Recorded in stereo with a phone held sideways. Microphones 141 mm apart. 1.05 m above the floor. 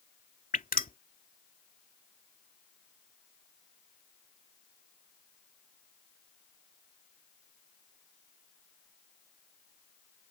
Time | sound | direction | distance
0.5 | dripping | 80° left | ?